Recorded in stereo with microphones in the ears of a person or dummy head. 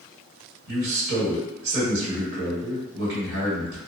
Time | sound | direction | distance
0.7 | a man speaking | 70° right (ahead or behind) | 1.4 m